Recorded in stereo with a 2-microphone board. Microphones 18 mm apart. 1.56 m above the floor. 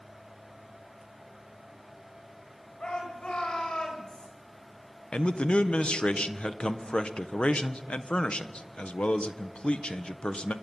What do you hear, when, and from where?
2.8 s a shout: 55° left (ahead or behind), 8.5 m; by 4.3 s 45° left (ahead or behind), 7.5 m
5.1 s a man speaking: 70° left (ahead or behind), 1.3 m